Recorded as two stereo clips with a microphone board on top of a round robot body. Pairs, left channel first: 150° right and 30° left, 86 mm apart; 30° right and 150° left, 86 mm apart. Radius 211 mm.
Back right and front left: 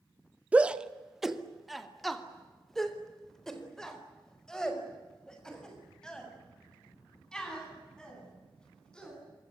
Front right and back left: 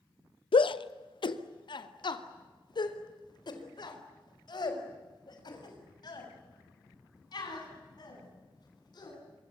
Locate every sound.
0.5 s a shout: 45° right, 1.1 m; by 9.2 s 70° right, 10.5 m